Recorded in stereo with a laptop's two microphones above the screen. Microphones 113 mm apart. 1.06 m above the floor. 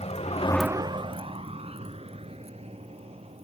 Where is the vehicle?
80° left; by 3.4 s 65° right (ahead or behind).